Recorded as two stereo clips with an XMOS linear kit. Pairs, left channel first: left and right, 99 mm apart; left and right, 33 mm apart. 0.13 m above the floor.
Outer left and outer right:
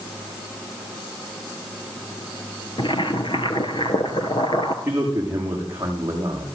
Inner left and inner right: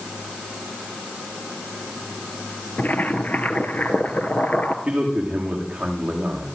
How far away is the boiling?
About 2 m.